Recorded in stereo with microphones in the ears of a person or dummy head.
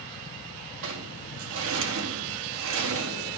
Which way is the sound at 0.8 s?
75° right (ahead or behind).